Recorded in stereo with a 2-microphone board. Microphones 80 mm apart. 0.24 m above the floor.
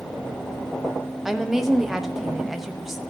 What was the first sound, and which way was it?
A woman speaking, 5° right (ahead or behind).